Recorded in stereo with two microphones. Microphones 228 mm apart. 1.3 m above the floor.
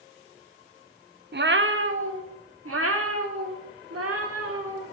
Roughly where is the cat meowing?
Right.